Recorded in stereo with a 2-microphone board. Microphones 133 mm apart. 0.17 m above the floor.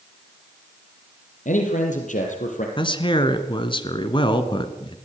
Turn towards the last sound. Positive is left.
turn(degrees=40)  # may be behind; listen again after turning